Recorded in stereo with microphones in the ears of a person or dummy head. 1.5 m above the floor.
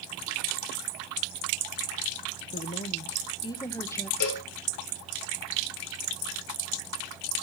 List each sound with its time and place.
2.5 s a woman speaking: 35° left (ahead or behind), 1.3 m; by 4.1 s 10° left (ahead or behind), 1.7 m
4.2 s a cowbell: 55° left (ahead or behind), 5 m